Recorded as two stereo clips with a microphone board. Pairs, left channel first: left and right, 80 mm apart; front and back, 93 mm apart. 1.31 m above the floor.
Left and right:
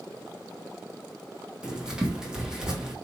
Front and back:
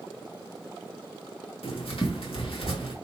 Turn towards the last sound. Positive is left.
turn(degrees=-10)